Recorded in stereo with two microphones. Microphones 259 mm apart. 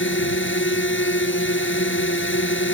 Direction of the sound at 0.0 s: 50° left (ahead or behind).